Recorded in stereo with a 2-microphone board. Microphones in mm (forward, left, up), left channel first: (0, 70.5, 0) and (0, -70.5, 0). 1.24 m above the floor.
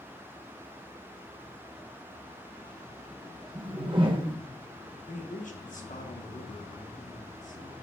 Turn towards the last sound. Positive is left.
turn(degrees=65)  # may be behind; listen again after turning